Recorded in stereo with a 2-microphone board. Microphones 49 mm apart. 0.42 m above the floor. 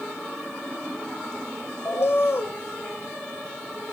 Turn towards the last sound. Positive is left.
turn(degrees=60)  # may be behind; listen again after turning